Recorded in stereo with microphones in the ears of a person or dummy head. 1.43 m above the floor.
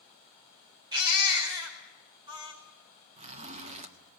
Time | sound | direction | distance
0.9 | a baby crying | 30° right (ahead or behind) | 4.5 m
3.2 | a zipper | 30° right (ahead or behind) | 1.5 m